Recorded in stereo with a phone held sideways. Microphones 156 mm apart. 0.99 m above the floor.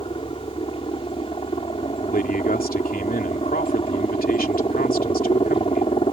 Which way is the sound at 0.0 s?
35° left (ahead or behind).